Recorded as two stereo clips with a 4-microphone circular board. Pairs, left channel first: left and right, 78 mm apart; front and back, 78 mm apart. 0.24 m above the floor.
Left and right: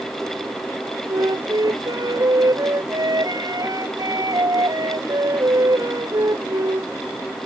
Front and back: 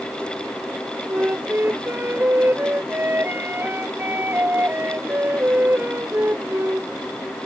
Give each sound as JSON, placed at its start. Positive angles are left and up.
{"t": 1.1, "sound": "a flute", "azimuth_deg": -120}